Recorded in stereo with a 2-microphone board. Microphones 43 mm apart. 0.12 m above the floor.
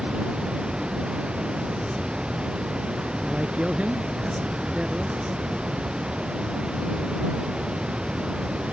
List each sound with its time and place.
0.0 s running water: 25° right (ahead or behind)
3.2 s a man speaking: 35° right (ahead or behind)